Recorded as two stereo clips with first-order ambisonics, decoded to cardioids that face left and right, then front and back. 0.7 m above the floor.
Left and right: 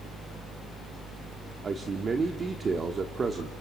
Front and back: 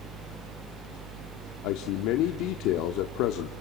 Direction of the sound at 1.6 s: 20° right.